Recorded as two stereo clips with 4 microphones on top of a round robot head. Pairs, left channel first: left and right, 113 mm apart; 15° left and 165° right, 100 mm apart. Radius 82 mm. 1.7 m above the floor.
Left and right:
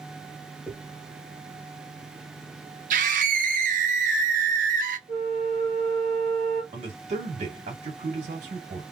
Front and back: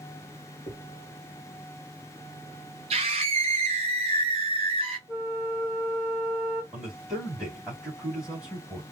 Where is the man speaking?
80° right, 2.5 m.